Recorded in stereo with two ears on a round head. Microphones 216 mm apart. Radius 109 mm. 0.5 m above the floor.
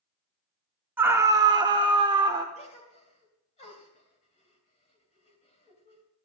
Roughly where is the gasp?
Left.